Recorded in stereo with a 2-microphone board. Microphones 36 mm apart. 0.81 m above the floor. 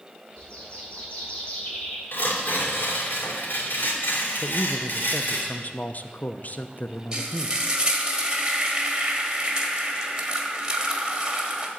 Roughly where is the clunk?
I don't hear a clunk.